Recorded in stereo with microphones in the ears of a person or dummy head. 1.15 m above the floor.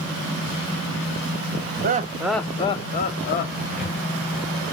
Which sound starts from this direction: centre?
A cupboard door, at 3.7 s.